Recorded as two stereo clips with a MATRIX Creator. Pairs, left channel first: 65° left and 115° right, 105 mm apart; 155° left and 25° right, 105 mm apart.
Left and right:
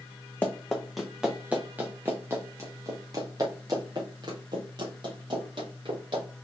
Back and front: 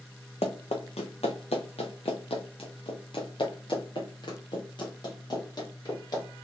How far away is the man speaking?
No man speaking in this recording.